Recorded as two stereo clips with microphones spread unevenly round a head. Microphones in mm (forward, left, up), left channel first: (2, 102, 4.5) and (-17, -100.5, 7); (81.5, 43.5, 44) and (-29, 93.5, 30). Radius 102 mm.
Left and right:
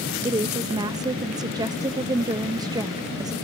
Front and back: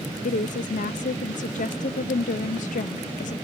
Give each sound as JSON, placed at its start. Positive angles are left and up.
{"t": 0.2, "sound": "a woman speaking", "azimuth_deg": -25}